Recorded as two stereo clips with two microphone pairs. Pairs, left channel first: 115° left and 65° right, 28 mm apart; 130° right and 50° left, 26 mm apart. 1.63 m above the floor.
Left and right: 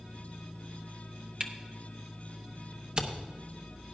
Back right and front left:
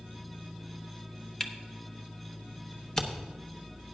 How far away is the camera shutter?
About 0.9 m.